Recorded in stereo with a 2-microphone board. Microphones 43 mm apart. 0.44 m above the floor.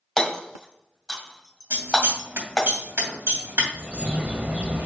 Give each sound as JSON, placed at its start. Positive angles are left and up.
{"t": 0.2, "sound": "hammering", "side_deg": 5, "distance_m": 1.6}
{"t": 1.7, "sound": "scissors", "side_deg": -65, "distance_m": 2.5}
{"t": 3.7, "sound": "a bird", "side_deg": -35, "distance_m": 0.6}